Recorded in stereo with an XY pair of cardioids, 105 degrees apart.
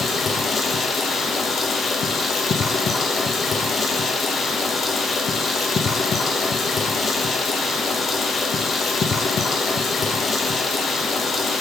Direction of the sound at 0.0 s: 50° left.